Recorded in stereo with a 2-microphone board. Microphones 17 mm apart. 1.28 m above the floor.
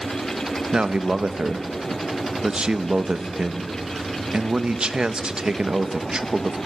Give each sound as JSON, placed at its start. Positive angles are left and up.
{"t": 0.7, "sound": "a man speaking", "side_deg": -75, "distance_m": 1.0}